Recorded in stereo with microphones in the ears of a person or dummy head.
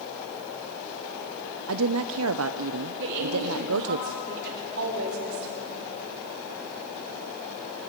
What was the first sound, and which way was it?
A woman speaking, 70° right (ahead or behind).